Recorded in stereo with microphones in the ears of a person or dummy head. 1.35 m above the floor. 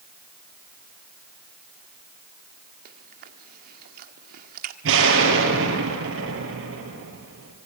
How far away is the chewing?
About 1.5 m.